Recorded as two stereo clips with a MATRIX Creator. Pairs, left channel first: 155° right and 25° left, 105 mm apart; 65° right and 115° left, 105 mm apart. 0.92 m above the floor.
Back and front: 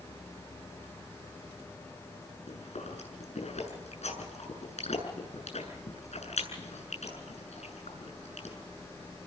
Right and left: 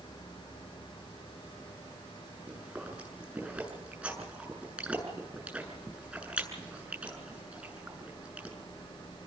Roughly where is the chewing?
Behind.